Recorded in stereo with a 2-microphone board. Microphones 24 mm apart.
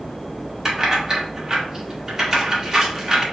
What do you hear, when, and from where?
0.7 s keys jangling: 25° right (ahead or behind), 1.0 m